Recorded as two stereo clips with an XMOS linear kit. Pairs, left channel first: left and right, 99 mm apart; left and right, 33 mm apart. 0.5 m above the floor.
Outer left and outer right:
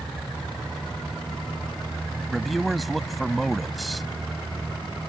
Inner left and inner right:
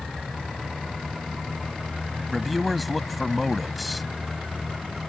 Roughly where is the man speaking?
Centre.